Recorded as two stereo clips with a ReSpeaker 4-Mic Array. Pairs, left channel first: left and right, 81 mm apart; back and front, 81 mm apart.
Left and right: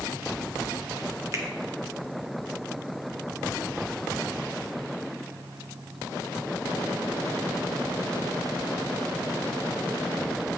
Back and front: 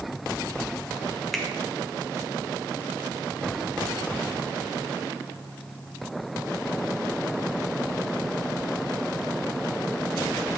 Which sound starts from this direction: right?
A finger snap, at 1.3 s.